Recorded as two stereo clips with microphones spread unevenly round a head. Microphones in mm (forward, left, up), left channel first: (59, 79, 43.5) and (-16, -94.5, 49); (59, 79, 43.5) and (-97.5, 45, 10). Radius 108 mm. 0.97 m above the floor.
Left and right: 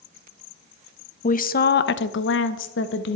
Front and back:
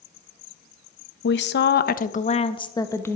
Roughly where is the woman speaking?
Ahead.